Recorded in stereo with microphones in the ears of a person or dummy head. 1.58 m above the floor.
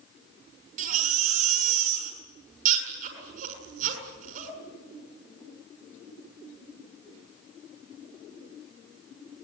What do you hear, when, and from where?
0.8 s a baby crying: 55° right (ahead or behind), 7 m